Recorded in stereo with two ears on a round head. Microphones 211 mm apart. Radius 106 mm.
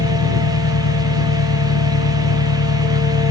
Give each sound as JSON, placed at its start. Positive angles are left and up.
{"t": 0.0, "sound": "an engine running", "side_deg": 80}